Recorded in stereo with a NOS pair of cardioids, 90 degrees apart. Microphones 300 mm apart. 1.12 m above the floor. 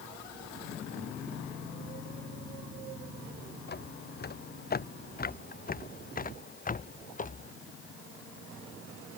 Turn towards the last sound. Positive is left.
turn(degrees=25)